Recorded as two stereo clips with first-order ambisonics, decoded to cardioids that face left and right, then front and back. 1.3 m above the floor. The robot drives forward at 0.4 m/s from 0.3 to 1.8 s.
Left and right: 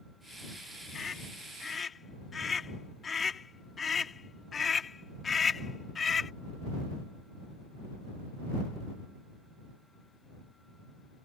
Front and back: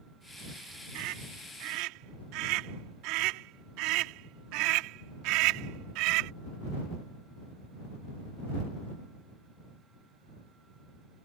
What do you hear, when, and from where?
0.9 s a scream: 160° left